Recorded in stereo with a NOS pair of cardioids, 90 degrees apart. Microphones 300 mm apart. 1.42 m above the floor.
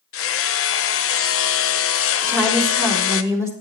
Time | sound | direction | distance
0.1 | hammering | 50° left | 0.9 m
2.2 | a woman speaking | 10° right | 4.5 m